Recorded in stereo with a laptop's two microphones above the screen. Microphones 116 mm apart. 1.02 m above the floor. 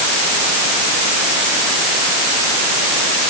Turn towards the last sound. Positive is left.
No sound to turn to.